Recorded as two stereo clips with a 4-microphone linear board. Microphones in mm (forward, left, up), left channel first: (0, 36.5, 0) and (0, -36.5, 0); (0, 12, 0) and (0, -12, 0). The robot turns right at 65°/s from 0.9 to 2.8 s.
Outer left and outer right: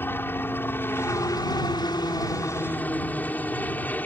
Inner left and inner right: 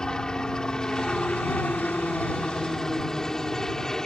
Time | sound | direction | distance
0.0 | a helicopter | 30° left | ?